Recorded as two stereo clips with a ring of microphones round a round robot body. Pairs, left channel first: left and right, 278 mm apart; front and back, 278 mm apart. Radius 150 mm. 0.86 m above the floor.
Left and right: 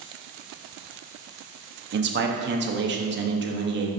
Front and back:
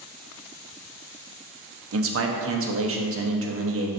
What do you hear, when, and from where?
1.9 s a man speaking: 140° right, 1.0 m